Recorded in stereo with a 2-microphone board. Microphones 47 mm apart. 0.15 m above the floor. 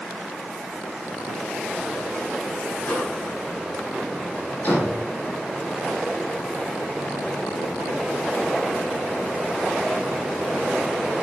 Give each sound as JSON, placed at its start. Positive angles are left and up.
{"t": 2.8, "sound": "a microwave", "side_deg": 40, "distance_m": 6.0}
{"t": 4.6, "sound": "a door slam", "side_deg": 40, "distance_m": 8.5}